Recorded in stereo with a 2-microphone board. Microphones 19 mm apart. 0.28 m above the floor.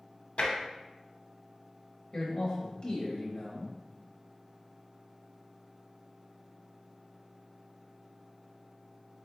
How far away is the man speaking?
About 0.9 m.